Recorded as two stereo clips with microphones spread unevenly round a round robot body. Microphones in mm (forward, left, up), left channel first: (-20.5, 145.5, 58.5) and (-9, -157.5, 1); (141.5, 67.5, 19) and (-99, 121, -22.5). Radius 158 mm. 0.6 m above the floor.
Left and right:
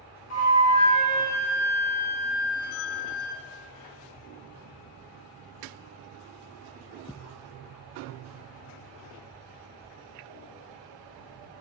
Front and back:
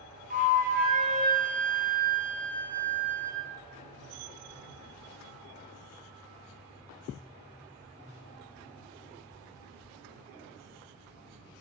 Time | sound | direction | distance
0.3 | a flute | 130° left | 1.6 m